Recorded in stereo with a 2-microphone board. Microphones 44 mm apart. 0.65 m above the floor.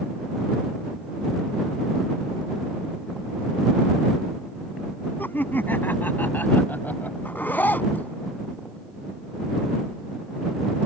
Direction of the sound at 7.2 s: 45° left (ahead or behind).